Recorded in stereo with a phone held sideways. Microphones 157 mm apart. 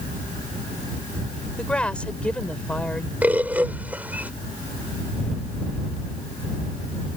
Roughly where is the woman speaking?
Centre.